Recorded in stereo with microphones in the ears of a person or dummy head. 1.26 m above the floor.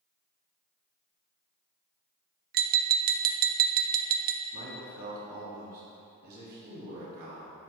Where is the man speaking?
55° right (ahead or behind), 3 m.